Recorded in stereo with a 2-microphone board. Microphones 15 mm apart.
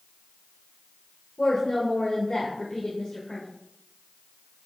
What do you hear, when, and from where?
1.4 s a woman speaking: 55° left (ahead or behind), 1.3 m